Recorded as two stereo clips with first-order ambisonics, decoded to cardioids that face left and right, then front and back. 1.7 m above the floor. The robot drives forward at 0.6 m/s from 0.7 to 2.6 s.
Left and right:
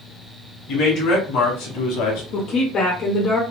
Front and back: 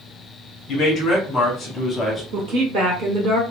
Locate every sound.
0.7 s a man speaking: 50° left, 2 m; by 2.2 s 80° left, 1.6 m
2.3 s a woman speaking: 135° left, 1.0 m; by 3.4 s 140° left, 1.1 m